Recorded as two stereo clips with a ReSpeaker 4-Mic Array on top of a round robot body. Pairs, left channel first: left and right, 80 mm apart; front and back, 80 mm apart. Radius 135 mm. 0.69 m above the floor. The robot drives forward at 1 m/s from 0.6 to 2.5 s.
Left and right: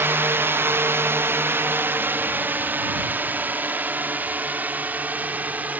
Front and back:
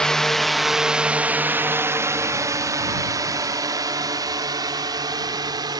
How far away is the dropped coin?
I don't hear a dropped coin.